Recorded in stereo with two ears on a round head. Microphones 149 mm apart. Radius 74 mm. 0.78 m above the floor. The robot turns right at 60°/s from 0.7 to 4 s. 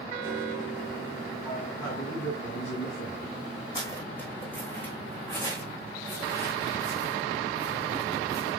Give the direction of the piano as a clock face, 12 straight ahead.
1 o'clock.